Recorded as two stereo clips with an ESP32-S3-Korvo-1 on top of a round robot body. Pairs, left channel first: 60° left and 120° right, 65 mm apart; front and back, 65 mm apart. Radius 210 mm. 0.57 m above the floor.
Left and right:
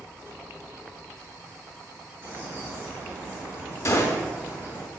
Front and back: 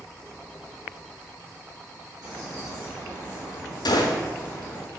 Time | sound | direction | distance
2.2 | a bird | straight behind | 2.5 m
3.9 | a gunshot | 15° left | 0.8 m